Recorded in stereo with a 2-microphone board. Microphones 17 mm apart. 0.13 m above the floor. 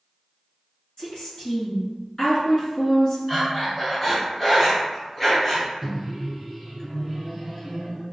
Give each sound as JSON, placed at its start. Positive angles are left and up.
{"t": 1.0, "sound": "a woman speaking", "side_deg": 40, "distance_m": 1.9}
{"t": 3.3, "sound": "breathing", "side_deg": 10, "distance_m": 1.6}
{"t": 5.8, "sound": "a microwave", "side_deg": -15, "distance_m": 1.2}